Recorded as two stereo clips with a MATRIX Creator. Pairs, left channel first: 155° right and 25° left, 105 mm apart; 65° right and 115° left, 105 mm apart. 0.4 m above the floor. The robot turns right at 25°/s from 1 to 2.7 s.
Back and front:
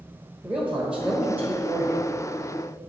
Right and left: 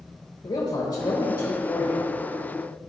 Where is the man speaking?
55° right, 1.2 m; by 2.1 s 25° right, 1.2 m.